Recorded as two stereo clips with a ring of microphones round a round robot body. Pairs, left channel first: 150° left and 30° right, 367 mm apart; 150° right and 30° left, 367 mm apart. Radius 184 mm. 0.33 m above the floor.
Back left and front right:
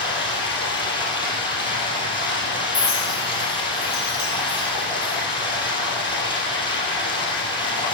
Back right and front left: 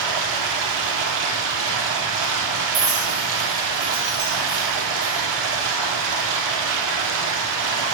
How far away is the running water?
About 3 m.